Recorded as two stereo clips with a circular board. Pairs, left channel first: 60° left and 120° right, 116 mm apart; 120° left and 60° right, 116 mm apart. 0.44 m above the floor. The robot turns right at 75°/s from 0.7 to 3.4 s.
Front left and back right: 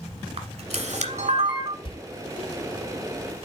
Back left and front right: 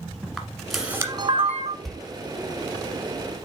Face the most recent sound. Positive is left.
turn(degrees=150)